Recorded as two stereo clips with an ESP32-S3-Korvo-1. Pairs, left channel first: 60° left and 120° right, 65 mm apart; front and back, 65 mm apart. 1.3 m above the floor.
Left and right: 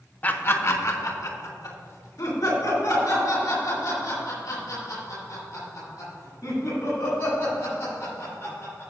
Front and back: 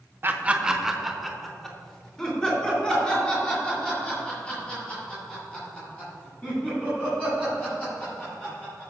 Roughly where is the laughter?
Behind left.